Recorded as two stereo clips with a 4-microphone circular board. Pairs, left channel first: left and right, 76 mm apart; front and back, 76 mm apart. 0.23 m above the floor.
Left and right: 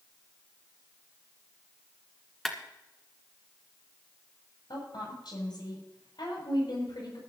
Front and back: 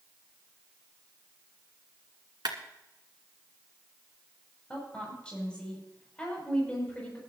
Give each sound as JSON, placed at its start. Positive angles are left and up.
{"t": 2.5, "sound": "a clap", "azimuth_deg": 175, "distance_m": 2.0}
{"t": 4.7, "sound": "a woman speaking", "azimuth_deg": 75, "distance_m": 7.0}